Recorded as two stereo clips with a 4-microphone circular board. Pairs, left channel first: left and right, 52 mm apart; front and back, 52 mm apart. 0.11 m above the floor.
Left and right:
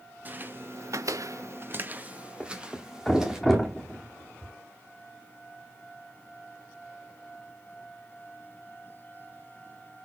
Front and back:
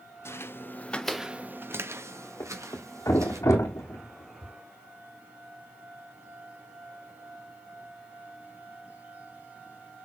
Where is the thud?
Straight ahead, 2 m.